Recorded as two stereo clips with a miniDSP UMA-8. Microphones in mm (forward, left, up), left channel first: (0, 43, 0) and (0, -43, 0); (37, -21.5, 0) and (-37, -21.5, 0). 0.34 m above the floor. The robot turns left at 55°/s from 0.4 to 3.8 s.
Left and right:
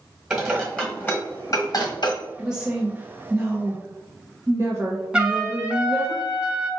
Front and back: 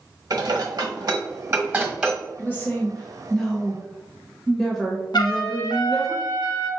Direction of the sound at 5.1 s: 10° right.